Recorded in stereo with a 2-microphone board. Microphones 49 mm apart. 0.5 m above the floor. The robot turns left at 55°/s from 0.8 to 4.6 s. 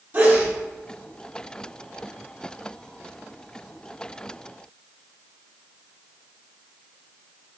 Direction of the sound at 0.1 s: 35° right (ahead or behind).